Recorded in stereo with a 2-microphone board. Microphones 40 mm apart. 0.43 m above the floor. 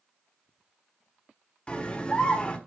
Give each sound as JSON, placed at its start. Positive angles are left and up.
{"t": 1.7, "sound": "a scream", "side_deg": 30, "distance_m": 1.1}